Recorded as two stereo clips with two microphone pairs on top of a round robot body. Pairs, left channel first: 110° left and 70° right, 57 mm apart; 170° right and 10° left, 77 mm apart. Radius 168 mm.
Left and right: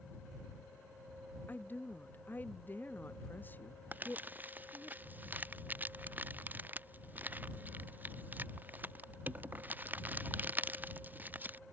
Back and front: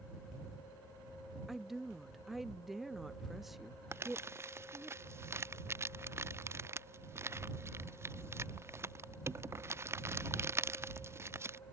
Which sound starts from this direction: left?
A woman speaking, at 1.5 s.